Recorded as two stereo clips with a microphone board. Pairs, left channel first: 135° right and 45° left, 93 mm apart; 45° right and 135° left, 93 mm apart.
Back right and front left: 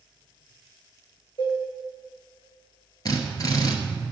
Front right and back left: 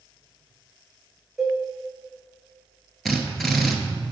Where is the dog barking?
I don't hear a dog barking.